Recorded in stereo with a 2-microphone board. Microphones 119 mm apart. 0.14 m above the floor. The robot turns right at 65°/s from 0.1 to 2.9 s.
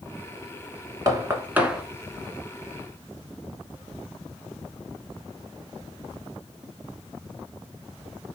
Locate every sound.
1.1 s knocking: 30° right (ahead or behind), 1.1 m; by 1.8 s 5° right (ahead or behind), 1.1 m